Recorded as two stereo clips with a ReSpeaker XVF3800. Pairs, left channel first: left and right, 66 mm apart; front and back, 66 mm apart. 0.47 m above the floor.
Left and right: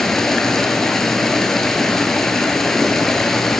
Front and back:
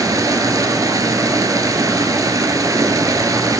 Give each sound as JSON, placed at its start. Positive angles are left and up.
{"t": 0.0, "sound": "running water", "azimuth_deg": 175, "distance_m": 0.7}